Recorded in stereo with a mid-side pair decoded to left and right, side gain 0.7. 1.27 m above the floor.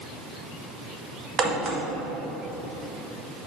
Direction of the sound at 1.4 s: 35° right.